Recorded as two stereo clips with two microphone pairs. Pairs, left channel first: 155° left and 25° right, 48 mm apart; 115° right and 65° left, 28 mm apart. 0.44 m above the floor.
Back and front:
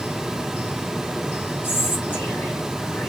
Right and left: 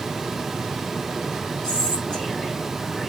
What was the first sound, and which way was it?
Whispering, 165° right.